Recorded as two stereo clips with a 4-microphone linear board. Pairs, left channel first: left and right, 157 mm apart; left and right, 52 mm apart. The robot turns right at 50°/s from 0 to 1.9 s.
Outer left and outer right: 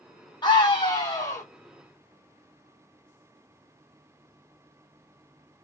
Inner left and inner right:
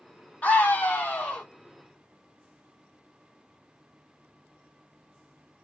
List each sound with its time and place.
0.4 s a scream: 30° left (ahead or behind), 1.2 m; by 1.4 s 20° left (ahead or behind), 1.2 m